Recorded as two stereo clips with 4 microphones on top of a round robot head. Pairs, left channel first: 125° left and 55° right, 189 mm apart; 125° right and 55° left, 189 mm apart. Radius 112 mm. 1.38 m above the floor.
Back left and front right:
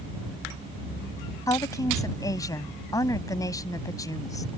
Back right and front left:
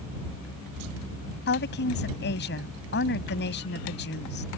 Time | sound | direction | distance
1.5 | a woman speaking | 160° right | ?